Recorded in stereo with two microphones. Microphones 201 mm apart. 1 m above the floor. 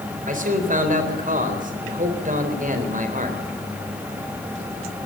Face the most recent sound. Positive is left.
turn(degrees=-40)  # may be behind; listen again after turning